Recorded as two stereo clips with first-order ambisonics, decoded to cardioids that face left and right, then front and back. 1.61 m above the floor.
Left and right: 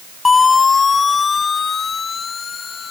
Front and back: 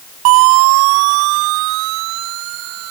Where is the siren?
165° left; by 2.9 s 155° left.